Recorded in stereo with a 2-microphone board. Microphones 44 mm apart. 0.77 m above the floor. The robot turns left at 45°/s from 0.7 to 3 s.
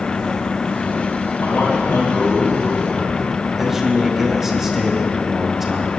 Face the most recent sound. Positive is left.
turn(degrees=-5)  # may be behind; listen again after turning